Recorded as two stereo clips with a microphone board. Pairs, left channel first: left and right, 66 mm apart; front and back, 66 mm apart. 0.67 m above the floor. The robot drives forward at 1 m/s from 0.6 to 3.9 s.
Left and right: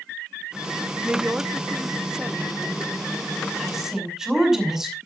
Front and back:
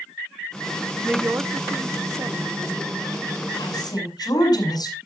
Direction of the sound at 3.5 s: 5° right.